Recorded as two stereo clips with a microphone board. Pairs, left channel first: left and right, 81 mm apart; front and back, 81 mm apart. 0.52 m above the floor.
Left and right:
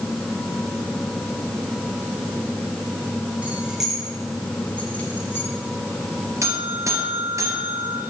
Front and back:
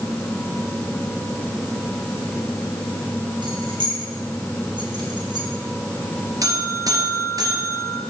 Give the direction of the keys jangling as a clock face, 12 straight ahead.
5 o'clock.